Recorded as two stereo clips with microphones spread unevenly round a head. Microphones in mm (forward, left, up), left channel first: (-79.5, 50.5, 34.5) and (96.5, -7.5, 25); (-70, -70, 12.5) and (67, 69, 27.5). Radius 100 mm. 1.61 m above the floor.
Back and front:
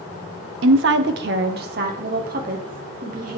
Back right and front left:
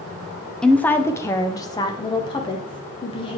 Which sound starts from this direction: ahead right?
A woman speaking, at 0.6 s.